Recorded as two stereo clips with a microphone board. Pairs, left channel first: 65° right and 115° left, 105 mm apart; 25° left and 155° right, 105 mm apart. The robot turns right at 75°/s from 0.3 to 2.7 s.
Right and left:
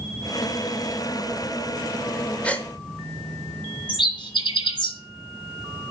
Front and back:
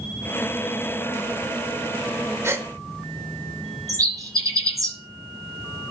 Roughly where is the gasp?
Behind right.